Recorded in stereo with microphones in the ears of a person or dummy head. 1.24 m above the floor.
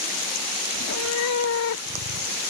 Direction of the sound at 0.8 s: 75° left (ahead or behind).